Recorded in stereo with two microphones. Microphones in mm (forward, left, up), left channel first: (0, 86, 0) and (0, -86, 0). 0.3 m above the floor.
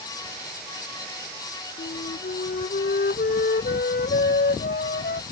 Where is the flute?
65° left (ahead or behind).